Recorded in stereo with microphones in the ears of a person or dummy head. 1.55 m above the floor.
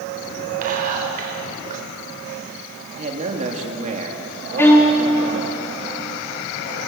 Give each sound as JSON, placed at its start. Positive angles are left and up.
{"t": 0.6, "sound": "whispering", "side_deg": -45, "distance_m": 5.5}
{"t": 3.0, "sound": "a man speaking", "side_deg": -35, "distance_m": 2.5}
{"t": 4.6, "sound": "a violin", "side_deg": 10, "distance_m": 2.5}